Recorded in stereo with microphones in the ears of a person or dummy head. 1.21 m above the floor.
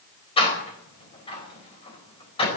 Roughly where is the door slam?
Left.